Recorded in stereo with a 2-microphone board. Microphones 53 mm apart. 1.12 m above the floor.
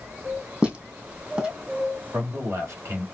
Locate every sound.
0.6 s footsteps: 20° right (ahead or behind), 2 m
2.1 s a man speaking: 60° right (ahead or behind), 2.5 m